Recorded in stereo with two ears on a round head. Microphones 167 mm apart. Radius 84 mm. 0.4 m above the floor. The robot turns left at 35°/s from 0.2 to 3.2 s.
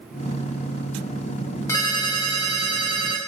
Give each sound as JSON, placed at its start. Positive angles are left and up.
{"t": 1.7, "sound": "a ringtone", "azimuth_deg": 160, "distance_m": 0.8}